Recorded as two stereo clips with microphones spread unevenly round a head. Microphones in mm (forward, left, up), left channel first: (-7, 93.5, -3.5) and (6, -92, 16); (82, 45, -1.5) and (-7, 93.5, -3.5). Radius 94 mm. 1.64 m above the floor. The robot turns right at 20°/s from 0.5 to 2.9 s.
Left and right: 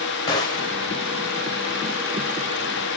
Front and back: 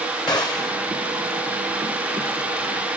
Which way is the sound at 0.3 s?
25° left.